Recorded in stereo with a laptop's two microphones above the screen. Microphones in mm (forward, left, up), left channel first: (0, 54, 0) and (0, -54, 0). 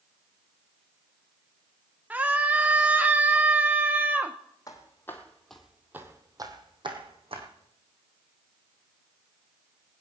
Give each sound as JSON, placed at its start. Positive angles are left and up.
{"t": 2.1, "sound": "a scream", "side_deg": -15, "distance_m": 0.7}
{"t": 4.7, "sound": "footsteps", "side_deg": 30, "distance_m": 2.5}